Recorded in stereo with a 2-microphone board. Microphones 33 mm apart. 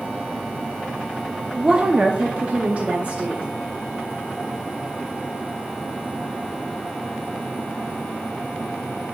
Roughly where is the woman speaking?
Right.